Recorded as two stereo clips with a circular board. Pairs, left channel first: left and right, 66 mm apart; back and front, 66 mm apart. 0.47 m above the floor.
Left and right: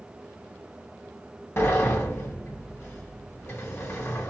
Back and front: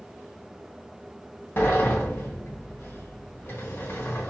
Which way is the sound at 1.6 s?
135° left.